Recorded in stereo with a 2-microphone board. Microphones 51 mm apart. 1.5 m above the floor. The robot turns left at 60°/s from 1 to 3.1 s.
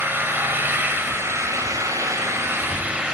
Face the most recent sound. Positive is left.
turn(degrees=-165)